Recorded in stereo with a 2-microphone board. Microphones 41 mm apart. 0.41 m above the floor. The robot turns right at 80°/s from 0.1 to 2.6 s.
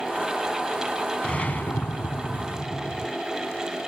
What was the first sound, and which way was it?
A whoosh, 25° left.